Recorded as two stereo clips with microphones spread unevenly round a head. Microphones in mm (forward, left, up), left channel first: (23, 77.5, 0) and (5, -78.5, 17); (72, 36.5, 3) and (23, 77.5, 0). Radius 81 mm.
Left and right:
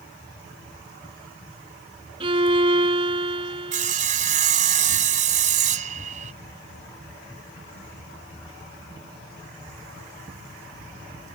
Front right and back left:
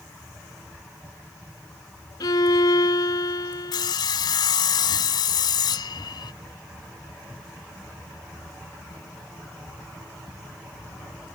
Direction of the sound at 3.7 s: 55° right.